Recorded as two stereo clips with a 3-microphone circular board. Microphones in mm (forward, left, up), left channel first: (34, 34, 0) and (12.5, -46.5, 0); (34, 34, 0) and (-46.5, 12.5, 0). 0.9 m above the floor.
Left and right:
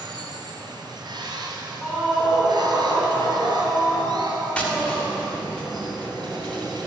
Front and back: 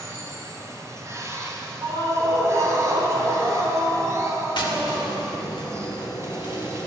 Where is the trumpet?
No trumpet in this recording.